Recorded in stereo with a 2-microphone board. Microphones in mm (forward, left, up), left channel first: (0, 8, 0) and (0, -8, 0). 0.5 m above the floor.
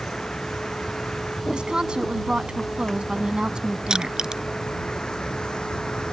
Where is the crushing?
45° right (ahead or behind).